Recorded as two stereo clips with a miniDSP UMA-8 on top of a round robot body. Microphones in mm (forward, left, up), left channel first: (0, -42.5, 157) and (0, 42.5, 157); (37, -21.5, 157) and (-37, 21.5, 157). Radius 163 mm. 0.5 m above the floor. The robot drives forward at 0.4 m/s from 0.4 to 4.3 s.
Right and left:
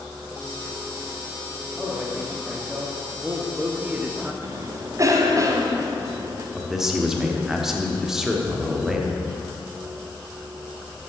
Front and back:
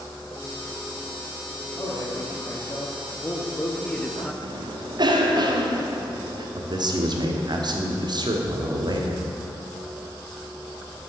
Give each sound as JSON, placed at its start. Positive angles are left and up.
{"t": 1.8, "sound": "a man speaking", "azimuth_deg": 10, "distance_m": 1.5}
{"t": 4.4, "sound": "a cough", "azimuth_deg": 135, "distance_m": 1.4}
{"t": 6.5, "sound": "a man speaking", "azimuth_deg": 175, "distance_m": 1.4}